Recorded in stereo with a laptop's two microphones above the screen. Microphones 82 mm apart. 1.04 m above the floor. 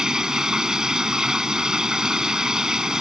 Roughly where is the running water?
Centre.